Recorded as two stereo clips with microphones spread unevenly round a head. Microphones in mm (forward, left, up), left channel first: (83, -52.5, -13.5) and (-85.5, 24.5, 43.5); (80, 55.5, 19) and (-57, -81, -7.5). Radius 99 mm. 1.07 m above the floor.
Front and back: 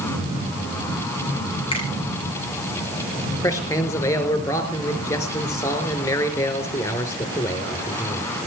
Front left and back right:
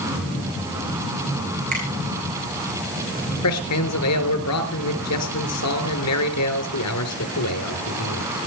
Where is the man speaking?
50° left, 3.5 m.